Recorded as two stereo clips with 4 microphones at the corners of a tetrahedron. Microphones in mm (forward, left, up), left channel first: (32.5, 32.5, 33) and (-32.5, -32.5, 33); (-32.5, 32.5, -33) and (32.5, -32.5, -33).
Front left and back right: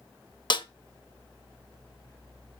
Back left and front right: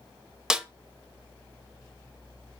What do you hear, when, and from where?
0.5 s a snare drum: 40° left, 0.8 m